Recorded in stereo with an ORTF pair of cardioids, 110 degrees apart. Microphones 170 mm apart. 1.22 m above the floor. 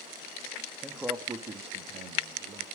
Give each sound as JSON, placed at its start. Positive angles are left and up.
{"t": 0.8, "sound": "a man speaking", "azimuth_deg": 0, "distance_m": 1.6}